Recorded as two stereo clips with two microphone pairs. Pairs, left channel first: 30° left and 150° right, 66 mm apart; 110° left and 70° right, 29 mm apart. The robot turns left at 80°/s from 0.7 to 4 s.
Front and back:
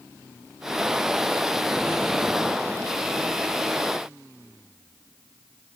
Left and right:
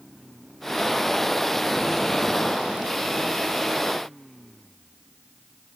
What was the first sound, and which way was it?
Only background noise.